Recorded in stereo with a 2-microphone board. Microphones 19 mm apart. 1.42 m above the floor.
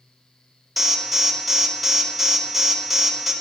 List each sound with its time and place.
0.8 s an alarm: centre (ahead or behind), 2 m